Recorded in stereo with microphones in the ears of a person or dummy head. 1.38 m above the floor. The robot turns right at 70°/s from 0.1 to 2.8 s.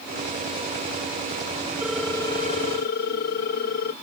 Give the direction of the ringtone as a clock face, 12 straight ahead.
12 o'clock.